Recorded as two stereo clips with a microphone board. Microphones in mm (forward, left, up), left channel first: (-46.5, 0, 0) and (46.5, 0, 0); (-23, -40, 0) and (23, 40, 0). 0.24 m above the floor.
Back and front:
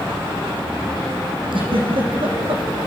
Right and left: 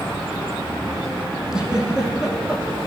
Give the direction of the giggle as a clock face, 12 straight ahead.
1 o'clock.